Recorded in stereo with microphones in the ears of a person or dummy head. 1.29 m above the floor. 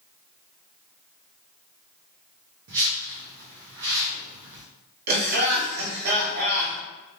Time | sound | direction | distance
2.7 | a whoosh | 60° right (ahead or behind) | 0.7 m
5.1 | laughter | 55° right (ahead or behind) | 1.7 m